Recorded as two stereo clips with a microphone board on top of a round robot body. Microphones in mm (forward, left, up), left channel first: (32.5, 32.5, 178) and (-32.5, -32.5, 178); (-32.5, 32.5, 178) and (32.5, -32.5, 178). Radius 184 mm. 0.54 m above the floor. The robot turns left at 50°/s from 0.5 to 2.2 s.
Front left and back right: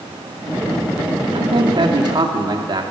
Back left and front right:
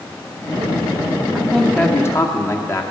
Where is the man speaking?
130° right, 2 m; by 2.8 s 175° right, 2 m.